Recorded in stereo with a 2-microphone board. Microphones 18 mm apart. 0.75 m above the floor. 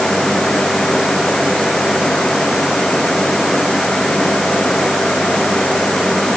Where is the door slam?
I don't hear a door slam.